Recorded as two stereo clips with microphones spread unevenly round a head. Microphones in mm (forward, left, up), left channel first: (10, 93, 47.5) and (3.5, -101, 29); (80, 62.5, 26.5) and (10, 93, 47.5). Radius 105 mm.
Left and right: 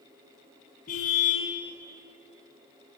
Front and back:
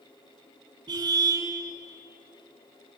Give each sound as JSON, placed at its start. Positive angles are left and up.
{"t": 0.9, "sound": "a car horn", "azimuth_deg": 140, "distance_m": 5.0}